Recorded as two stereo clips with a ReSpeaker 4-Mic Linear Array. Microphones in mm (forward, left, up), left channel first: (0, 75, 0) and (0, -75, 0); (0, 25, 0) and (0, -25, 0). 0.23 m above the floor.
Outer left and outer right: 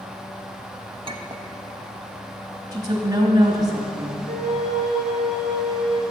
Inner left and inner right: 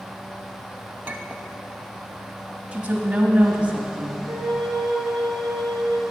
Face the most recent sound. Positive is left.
turn(degrees=-80)